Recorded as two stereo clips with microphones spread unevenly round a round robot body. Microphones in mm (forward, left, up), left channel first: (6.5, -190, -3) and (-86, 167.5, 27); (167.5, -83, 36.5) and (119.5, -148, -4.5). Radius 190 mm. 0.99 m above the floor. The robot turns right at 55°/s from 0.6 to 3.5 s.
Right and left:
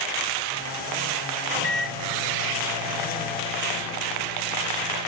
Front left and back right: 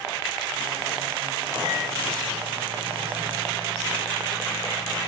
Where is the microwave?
100° left, 1.8 m; by 5.1 s 150° right, 1.8 m.